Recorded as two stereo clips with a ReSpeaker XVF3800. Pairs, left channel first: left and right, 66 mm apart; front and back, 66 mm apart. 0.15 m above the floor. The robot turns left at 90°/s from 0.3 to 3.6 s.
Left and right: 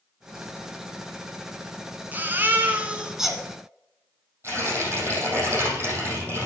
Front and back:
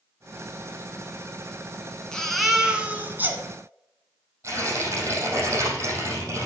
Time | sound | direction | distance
2.1 | a baby crying | 65° right | 1.3 m
4.4 | tearing paper | 140° right | 4.5 m